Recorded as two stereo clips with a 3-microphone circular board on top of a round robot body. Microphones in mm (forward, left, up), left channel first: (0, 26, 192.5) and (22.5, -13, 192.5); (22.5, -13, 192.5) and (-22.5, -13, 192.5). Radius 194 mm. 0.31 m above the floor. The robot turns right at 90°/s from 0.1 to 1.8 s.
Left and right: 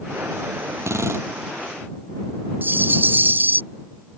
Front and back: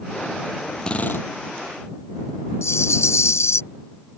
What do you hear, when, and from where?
0.8 s a drill: 75° right; by 1.3 s 30° right
2.6 s a rattle: 15° right